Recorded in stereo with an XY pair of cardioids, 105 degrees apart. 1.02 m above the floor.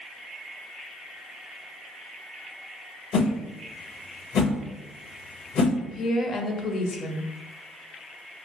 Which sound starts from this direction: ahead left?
A woman speaking, at 5.8 s.